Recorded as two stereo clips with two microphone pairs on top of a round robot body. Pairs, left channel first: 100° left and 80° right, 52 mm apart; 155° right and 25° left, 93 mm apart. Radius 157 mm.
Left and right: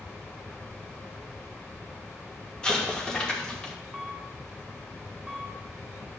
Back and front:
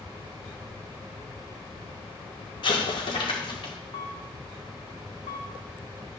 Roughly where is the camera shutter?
Behind.